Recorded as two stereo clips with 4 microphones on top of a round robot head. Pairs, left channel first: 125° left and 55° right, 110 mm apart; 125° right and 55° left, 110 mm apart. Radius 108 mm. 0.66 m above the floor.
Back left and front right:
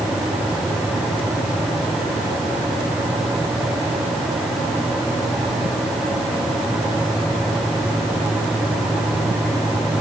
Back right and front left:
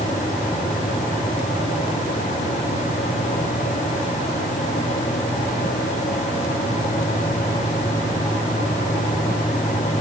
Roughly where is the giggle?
No giggle in this recording.